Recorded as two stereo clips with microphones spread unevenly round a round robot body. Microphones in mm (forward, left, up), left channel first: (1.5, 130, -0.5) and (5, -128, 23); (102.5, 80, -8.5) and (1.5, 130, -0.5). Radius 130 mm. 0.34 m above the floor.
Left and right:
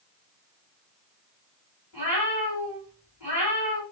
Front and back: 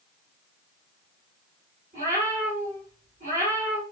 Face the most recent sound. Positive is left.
turn(degrees=-170)